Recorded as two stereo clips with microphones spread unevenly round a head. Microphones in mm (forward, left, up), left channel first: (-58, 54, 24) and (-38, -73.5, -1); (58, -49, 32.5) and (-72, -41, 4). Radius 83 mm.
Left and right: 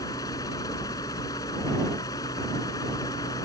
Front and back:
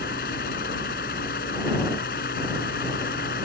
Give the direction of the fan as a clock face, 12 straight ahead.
11 o'clock.